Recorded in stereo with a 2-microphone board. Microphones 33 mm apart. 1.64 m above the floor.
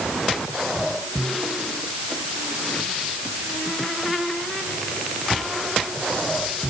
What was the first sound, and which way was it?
Only background noise.